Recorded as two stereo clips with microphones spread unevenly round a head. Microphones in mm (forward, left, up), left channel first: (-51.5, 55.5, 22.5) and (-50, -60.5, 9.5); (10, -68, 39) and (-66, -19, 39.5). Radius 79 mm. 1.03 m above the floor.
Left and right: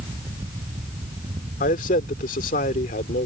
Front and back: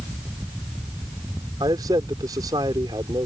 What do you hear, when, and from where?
1.6 s a man speaking: 85° left